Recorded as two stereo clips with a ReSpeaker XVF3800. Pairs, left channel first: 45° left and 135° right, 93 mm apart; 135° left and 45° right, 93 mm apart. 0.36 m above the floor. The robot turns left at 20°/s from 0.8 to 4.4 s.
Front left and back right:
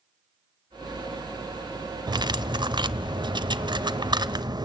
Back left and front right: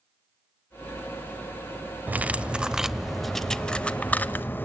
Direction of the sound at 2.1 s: 115° right.